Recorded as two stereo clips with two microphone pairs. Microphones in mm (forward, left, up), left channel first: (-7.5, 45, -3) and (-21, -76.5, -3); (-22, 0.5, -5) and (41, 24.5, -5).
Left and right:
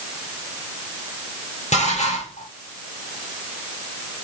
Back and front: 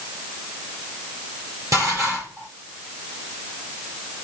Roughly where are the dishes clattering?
Ahead left.